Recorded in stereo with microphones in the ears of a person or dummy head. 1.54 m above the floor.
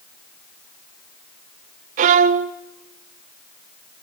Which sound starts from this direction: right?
A violin, at 2.0 s.